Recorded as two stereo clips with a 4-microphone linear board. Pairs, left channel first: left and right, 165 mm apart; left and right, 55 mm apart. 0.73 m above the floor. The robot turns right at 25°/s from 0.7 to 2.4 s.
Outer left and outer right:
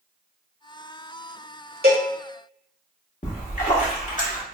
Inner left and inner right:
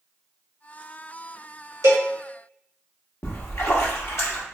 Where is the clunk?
I don't hear a clunk.